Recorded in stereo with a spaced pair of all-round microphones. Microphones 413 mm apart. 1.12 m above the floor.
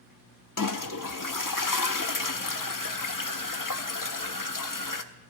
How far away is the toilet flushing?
About 0.7 m.